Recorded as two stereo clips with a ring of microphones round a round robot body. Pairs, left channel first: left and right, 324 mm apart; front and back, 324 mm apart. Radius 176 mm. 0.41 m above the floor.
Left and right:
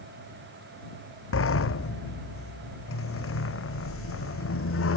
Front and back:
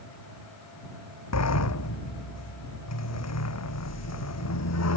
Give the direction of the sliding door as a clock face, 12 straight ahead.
11 o'clock.